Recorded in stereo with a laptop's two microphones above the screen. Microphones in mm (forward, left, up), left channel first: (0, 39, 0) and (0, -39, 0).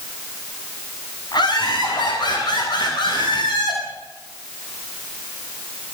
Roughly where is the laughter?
Left.